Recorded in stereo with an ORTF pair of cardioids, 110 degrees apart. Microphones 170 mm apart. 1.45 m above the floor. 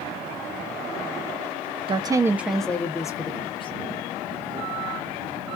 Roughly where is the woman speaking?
Ahead right.